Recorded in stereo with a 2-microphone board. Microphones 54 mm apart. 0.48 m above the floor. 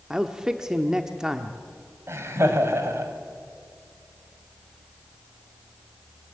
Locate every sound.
0.1 s a man speaking: 10° right (ahead or behind), 1.0 m
2.1 s laughter: 55° right (ahead or behind), 2.5 m